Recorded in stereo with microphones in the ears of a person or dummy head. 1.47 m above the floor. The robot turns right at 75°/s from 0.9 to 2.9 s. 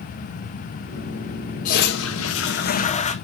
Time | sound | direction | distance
1.6 | a toilet flushing | 45° left | 0.9 m